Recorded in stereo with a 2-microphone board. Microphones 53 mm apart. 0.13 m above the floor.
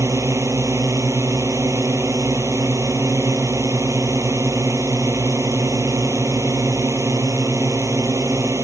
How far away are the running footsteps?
I don't hear running footsteps.